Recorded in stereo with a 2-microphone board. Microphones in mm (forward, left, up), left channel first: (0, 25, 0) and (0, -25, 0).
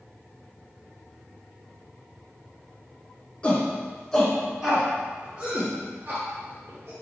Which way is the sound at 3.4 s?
25° left (ahead or behind).